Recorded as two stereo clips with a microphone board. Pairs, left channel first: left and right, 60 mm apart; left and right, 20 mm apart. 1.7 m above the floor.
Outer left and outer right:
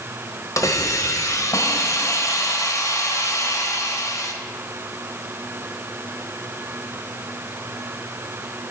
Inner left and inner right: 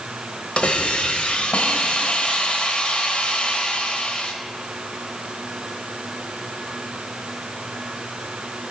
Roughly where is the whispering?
No whispering in this recording.